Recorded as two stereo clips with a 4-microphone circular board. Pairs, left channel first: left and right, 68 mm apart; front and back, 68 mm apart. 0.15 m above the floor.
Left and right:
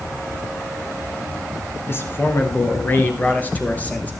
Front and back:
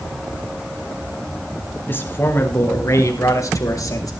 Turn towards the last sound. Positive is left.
turn(degrees=25)